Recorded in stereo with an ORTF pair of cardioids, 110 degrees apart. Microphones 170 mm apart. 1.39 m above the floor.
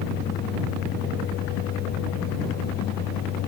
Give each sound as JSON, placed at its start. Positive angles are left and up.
{"t": 0.0, "sound": "a fan", "azimuth_deg": 65}